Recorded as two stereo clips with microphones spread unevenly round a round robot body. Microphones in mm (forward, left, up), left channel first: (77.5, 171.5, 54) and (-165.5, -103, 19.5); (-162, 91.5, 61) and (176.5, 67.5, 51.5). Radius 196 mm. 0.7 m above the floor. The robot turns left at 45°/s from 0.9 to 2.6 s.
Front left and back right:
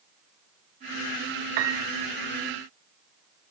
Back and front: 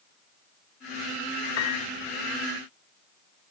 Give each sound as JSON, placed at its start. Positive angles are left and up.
{"t": 1.6, "sound": "a piano", "azimuth_deg": -130, "distance_m": 1.2}